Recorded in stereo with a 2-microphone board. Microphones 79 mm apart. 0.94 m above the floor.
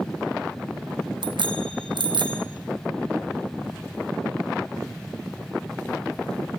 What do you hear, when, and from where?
1.2 s a bicycle bell: 85° right, 3.5 m